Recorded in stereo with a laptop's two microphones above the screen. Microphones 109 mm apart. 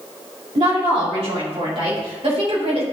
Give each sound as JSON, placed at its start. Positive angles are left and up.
{"t": 0.6, "sound": "a woman speaking", "side_deg": -70, "distance_m": 2.5}